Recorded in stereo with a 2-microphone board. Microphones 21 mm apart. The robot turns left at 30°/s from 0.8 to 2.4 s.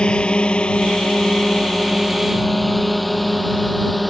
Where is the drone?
45° left (ahead or behind); by 4.1 s centre (ahead or behind).